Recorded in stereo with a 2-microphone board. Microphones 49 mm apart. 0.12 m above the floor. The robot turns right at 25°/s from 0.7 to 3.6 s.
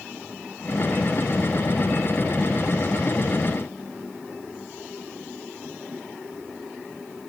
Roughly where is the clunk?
I don't hear a clunk.